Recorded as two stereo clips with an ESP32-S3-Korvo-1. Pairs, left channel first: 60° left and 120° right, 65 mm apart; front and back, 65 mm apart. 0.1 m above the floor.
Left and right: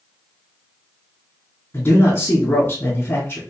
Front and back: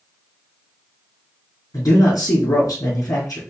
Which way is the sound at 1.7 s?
10° left.